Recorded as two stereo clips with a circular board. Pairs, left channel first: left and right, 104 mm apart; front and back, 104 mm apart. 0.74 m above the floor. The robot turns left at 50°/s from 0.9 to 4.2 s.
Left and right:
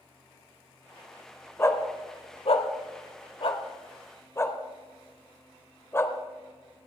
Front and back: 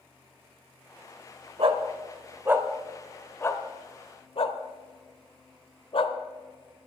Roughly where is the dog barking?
Behind left.